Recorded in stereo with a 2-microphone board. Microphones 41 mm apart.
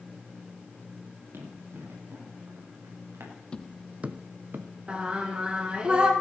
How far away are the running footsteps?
About 6 m.